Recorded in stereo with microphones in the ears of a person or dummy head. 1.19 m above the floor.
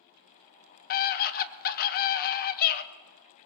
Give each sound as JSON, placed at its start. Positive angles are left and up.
{"t": 0.9, "sound": "a scream", "side_deg": 45, "distance_m": 1.1}